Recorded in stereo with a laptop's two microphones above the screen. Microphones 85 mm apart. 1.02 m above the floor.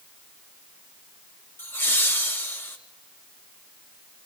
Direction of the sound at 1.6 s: 30° left (ahead or behind).